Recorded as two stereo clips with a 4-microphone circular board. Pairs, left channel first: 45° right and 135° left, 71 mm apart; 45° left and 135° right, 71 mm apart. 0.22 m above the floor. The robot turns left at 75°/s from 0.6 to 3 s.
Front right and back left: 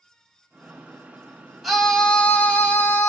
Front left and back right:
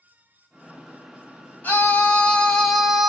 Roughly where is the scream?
Ahead left.